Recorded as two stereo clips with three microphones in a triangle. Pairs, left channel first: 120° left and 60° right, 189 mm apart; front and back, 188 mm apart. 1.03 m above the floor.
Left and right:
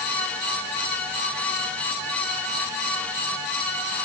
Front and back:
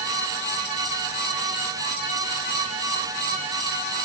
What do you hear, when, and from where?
Only background noise.